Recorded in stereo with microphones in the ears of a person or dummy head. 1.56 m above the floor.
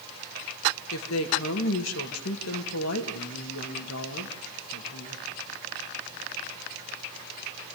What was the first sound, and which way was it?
A woman speaking, 80° left.